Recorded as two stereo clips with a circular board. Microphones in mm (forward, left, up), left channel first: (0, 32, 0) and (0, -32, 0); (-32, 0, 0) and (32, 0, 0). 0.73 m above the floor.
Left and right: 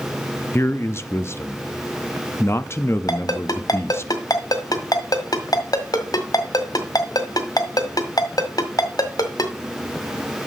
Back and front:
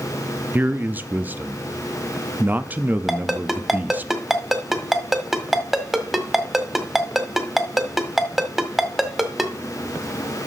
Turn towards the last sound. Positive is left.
turn(degrees=90)